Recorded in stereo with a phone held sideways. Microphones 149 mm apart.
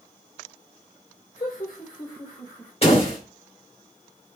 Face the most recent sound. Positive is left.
turn(degrees=40)  # may be behind; listen again after turning